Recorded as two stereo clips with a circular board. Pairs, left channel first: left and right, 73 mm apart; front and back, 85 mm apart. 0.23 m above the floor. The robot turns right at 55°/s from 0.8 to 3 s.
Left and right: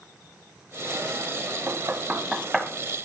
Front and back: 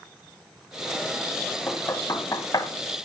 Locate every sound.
1.7 s knocking: 50° right, 1.1 m; by 2.7 s 5° left, 1.1 m